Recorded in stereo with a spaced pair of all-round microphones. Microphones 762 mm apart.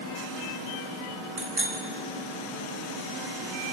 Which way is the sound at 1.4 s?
70° right (ahead or behind).